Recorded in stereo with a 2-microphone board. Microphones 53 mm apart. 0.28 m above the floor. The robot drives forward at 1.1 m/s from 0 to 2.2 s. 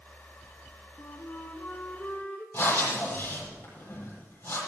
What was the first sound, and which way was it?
A flute, 60° left (ahead or behind).